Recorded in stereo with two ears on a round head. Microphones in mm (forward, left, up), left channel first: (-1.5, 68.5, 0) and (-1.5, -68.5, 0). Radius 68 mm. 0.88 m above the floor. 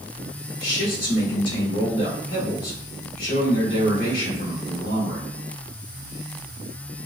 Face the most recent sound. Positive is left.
turn(degrees=60)  # may be behind; listen again after turning